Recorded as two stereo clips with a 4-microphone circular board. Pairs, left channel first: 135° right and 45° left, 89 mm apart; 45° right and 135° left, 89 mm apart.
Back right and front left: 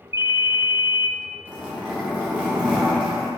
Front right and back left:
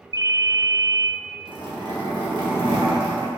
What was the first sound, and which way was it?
A ringtone, 100° left.